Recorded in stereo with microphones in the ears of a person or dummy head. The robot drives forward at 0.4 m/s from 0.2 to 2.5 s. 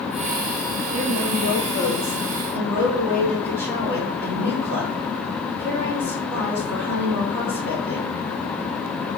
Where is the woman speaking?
55° right (ahead or behind), 1.3 m; by 8.1 s 35° right (ahead or behind), 1.7 m.